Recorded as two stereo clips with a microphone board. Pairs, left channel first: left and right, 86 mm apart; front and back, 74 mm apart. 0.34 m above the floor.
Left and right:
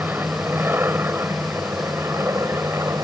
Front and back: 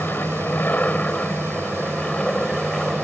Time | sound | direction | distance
0.0 | an aircraft | 45° right | ?